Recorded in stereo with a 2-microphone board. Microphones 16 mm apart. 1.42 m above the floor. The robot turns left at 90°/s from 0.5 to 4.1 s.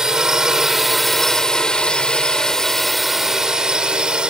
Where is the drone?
140° right; by 4.3 s 100° right.